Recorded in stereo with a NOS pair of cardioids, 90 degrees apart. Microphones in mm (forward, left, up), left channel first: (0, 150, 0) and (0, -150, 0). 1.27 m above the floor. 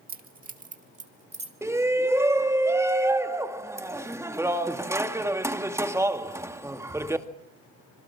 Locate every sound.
0.1 s keys jangling: 30° right, 2 m; by 1.6 s 20° right, 2.5 m
1.6 s a shout: 10° right, 2 m